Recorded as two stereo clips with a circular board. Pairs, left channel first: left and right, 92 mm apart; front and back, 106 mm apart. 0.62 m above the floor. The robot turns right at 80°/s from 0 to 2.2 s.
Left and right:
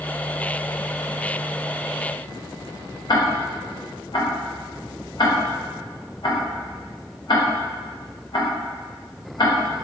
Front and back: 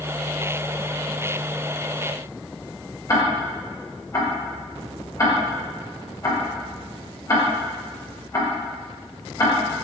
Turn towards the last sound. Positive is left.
turn(degrees=55)